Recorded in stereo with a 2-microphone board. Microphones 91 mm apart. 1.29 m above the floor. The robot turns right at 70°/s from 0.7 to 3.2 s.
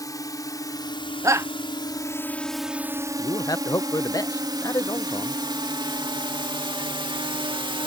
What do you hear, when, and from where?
0.0 s a drone: 40° left (ahead or behind); by 7.9 s 65° right (ahead or behind)
1.2 s a shout: 35° right (ahead or behind); by 1.5 s 30° right (ahead or behind)
3.2 s a man speaking: 40° left (ahead or behind)